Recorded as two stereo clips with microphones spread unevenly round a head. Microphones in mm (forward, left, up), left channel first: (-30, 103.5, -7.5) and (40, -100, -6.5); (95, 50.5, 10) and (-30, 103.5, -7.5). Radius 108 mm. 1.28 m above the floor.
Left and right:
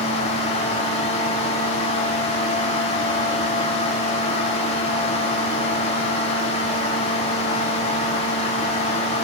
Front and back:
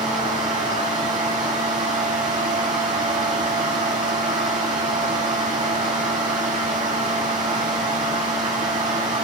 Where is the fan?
170° left, 2 m.